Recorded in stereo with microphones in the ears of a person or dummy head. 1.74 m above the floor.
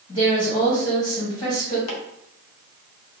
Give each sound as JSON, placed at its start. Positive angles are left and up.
{"t": 0.1, "sound": "a woman speaking", "side_deg": 30, "distance_m": 1.5}
{"t": 1.9, "sound": "chopping", "side_deg": 80, "distance_m": 0.7}